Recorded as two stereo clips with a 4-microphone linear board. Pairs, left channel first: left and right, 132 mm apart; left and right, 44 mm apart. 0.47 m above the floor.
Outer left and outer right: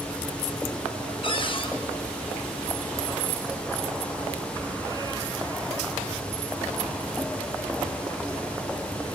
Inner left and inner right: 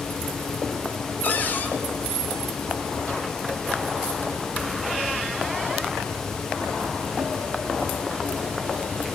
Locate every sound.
1.2 s a cupboard door: 40° left (ahead or behind), 4.5 m